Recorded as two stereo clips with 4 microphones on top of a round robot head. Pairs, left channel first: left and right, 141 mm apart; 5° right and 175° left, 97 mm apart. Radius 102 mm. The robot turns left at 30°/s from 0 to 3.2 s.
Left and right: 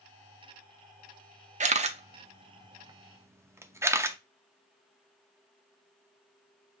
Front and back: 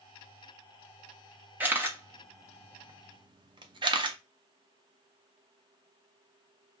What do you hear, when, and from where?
1.6 s a camera shutter: 110° right, 0.5 m; by 4.2 s 160° right, 0.5 m